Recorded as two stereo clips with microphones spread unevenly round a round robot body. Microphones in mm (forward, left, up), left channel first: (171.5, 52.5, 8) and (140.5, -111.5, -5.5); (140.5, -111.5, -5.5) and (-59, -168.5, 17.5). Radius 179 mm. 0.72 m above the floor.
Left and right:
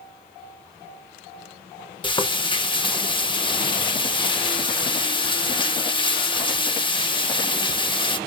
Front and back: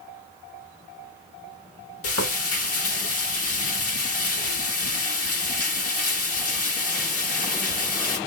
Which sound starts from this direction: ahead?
Frying, at 2.0 s.